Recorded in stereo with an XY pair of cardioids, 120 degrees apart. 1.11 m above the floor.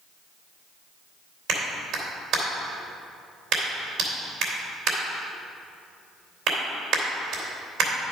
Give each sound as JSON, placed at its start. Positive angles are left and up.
{"t": 1.5, "sound": "a clap", "azimuth_deg": -65, "distance_m": 3.0}